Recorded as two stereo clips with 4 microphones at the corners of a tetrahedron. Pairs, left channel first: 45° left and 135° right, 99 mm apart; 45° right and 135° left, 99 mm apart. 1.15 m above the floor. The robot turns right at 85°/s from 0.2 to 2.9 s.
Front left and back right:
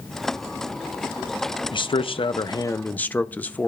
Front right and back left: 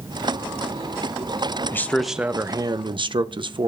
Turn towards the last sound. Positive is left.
turn(degrees=115)